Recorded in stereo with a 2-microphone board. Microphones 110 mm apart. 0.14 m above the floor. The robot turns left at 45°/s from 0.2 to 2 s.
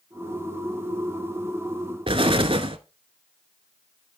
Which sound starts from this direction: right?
An explosion, at 2.1 s.